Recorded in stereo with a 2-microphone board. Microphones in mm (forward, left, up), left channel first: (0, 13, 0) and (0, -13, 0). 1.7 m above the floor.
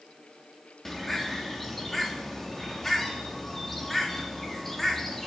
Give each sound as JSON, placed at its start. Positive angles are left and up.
{"t": 0.8, "sound": "a bird", "side_deg": 5, "distance_m": 4.0}